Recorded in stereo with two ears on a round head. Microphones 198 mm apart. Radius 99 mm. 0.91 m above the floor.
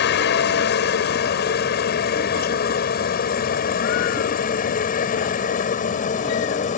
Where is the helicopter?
50° left (ahead or behind); by 6.8 s 35° left (ahead or behind).